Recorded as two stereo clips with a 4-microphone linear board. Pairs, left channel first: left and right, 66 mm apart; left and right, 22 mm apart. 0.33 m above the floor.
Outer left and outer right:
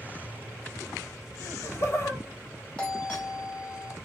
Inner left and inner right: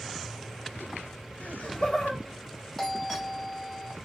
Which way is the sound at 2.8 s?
15° left (ahead or behind).